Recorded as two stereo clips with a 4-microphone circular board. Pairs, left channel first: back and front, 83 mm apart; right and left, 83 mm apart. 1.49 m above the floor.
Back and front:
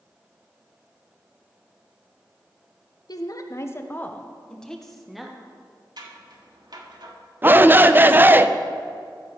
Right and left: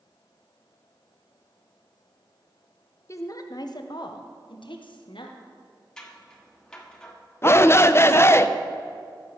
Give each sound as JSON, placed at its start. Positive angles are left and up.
{"t": 3.1, "sound": "a woman speaking", "azimuth_deg": -140, "distance_m": 0.9}
{"t": 6.0, "sound": "scissors", "azimuth_deg": -10, "distance_m": 1.4}
{"t": 7.4, "sound": "a shout", "azimuth_deg": -50, "distance_m": 0.5}